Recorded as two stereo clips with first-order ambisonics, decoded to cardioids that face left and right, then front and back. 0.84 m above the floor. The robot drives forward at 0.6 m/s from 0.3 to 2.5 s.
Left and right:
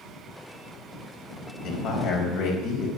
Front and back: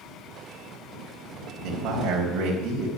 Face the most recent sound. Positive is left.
turn(degrees=130)